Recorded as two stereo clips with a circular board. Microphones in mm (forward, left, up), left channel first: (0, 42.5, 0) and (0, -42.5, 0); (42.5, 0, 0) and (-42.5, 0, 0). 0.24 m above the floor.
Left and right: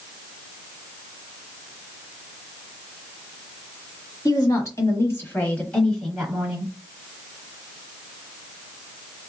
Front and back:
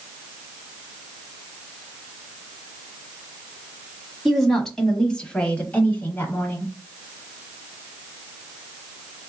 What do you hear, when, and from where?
4.2 s a woman speaking: 90° left, 1.4 m; by 6.7 s 25° right, 1.1 m